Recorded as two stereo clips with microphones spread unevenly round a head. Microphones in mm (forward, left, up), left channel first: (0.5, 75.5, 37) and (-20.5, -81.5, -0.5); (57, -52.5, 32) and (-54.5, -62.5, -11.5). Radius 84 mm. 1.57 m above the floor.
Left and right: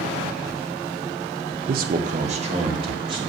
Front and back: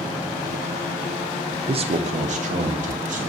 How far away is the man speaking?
About 0.5 m.